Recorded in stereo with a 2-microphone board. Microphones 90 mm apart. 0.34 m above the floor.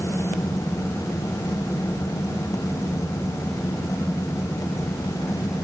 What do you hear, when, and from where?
Only background noise.